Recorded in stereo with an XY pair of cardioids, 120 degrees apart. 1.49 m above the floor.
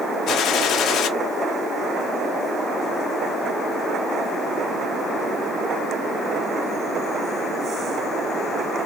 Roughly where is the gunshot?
Ahead left.